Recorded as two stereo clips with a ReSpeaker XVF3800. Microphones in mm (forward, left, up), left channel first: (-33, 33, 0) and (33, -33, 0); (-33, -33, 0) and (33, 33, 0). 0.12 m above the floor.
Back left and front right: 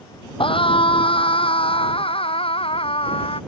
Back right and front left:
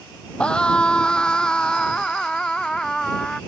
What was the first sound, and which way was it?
A scream, 145° left.